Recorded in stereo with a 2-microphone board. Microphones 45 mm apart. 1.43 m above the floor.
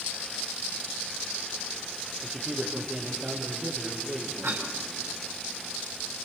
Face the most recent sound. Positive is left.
turn(degrees=-70)  # may be behind; listen again after turning